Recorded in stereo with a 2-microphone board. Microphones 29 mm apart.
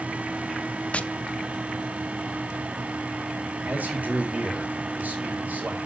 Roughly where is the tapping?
Left.